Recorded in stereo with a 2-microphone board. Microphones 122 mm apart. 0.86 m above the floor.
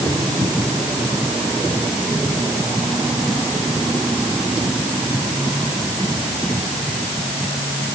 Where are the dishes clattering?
I don't hear dishes clattering.